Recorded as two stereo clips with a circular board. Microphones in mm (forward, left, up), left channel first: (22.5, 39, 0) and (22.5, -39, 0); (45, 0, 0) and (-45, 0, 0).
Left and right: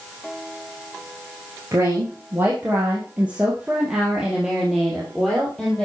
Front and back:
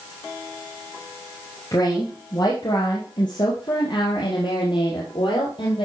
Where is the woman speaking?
40° right, 2.5 m; by 5.8 s 10° left, 3 m.